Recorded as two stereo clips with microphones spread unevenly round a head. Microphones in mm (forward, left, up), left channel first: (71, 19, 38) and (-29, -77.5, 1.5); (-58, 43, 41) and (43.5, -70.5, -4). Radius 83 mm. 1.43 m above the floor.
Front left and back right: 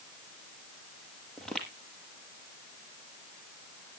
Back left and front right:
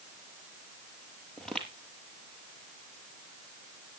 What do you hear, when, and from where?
1.4 s footsteps: 95° left, 1.5 m